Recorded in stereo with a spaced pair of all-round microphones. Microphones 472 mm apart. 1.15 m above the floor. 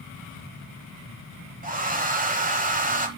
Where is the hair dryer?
15° right (ahead or behind), 1.3 m.